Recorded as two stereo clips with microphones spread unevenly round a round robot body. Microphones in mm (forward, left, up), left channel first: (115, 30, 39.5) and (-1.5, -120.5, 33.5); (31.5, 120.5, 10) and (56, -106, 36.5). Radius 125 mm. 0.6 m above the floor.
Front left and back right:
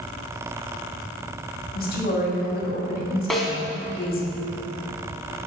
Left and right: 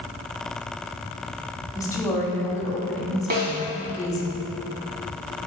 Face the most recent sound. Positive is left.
turn(degrees=-35)